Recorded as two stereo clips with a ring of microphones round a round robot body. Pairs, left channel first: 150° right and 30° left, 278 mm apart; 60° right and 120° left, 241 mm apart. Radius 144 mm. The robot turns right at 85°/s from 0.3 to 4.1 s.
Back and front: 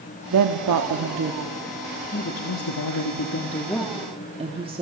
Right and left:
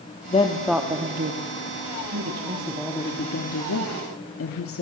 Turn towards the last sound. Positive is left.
turn(degrees=-40)